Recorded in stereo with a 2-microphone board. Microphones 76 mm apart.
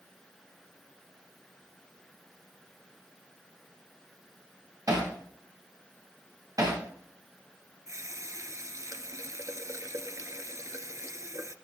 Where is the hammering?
50° right (ahead or behind), 8 m.